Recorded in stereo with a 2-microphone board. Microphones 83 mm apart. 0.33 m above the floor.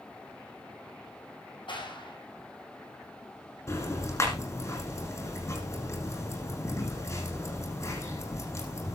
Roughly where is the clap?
Left.